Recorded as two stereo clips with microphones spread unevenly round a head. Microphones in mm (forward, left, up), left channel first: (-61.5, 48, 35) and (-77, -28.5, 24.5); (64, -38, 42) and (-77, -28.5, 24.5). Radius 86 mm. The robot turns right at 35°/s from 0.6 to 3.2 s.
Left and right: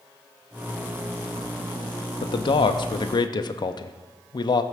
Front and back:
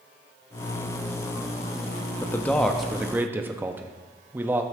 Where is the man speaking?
70° left, 0.5 m; by 4.6 s 105° left, 0.5 m.